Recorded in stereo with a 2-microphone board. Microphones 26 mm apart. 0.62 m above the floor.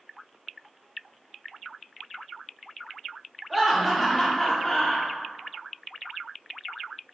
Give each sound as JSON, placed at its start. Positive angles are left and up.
{"t": 3.5, "sound": "laughter", "side_deg": 0, "distance_m": 1.0}